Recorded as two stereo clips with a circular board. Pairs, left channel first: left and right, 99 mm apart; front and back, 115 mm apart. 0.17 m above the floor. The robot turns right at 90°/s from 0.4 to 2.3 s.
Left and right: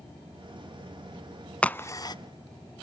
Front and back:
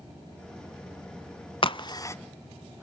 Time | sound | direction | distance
1.6 | a crack | 15° left | 0.5 m